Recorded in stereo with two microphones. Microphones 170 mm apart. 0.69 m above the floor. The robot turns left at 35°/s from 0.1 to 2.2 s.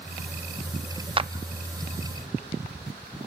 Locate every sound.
1.2 s a clap: 30° right (ahead or behind), 0.5 m; by 1.3 s 35° right (ahead or behind), 0.5 m